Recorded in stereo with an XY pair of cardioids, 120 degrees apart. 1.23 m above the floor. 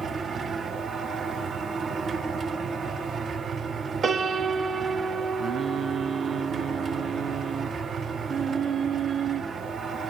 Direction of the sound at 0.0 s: 40° right.